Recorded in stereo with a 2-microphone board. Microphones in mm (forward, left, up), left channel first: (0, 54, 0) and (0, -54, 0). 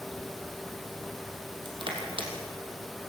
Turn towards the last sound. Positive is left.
turn(degrees=-50)  # may be behind; listen again after turning